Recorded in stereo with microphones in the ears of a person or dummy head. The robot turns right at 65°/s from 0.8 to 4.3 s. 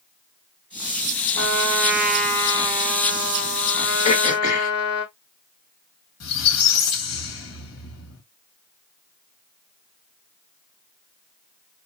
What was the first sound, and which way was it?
A trumpet, 55° right.